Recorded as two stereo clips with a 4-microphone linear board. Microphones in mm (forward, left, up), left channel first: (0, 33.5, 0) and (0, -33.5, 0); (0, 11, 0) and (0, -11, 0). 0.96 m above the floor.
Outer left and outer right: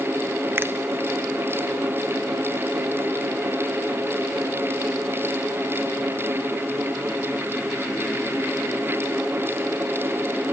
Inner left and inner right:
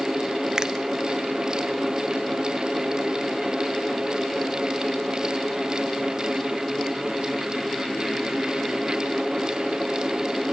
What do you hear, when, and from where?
0.6 s a finger snap: 35° right (ahead or behind), 0.5 m